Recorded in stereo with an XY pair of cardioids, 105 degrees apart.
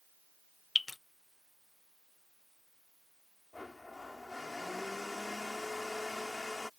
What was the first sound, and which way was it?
Dripping, 25° left.